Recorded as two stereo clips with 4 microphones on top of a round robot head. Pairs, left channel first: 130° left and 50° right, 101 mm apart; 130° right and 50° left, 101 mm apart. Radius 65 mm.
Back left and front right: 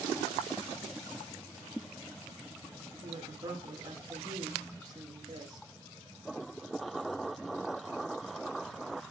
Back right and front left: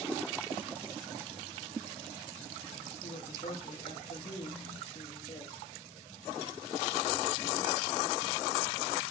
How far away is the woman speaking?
About 2 m.